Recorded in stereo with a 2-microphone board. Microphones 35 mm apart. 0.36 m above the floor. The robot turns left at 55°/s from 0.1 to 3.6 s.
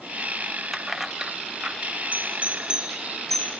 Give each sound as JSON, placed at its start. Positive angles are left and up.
{"t": 0.7, "sound": "keys jangling", "side_deg": 5, "distance_m": 0.8}
{"t": 2.1, "sound": "a doorbell", "side_deg": -55, "distance_m": 9.5}